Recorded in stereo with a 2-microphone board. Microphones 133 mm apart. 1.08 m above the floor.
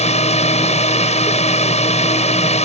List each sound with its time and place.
0.0 s a drone: 50° left (ahead or behind)